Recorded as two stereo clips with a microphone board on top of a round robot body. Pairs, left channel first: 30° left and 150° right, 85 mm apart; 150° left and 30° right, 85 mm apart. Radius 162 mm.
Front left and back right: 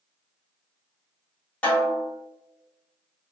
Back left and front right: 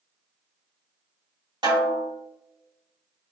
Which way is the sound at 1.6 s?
40° right.